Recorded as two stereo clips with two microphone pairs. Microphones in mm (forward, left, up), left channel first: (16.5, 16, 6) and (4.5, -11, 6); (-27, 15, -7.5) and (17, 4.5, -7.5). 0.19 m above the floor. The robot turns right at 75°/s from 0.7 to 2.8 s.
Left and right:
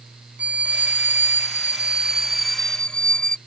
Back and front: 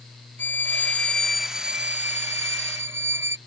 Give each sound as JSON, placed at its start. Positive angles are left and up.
{"t": 0.4, "sound": "a violin", "azimuth_deg": -155}